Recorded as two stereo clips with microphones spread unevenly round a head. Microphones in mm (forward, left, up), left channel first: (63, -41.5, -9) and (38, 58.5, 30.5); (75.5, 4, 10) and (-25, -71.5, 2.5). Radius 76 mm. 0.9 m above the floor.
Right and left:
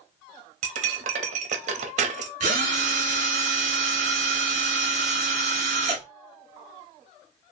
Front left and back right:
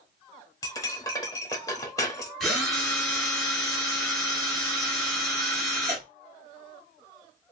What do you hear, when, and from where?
0.6 s cutlery clinking: 110° left, 0.7 m
2.4 s a drill: 125° left, 1.3 m